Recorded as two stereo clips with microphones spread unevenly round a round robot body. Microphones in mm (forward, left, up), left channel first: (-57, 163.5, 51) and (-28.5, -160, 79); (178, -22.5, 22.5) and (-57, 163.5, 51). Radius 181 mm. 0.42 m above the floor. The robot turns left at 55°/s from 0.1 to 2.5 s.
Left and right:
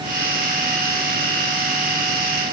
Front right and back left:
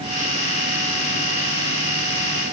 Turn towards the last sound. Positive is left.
No sound to turn to.